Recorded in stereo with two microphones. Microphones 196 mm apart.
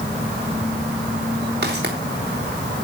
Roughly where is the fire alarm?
I don't hear a fire alarm.